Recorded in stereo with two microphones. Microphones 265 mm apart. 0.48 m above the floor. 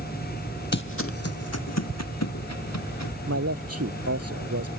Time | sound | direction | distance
0.7 | footsteps | 45° left (ahead or behind) | ?
3.3 | a man speaking | 65° right (ahead or behind) | ?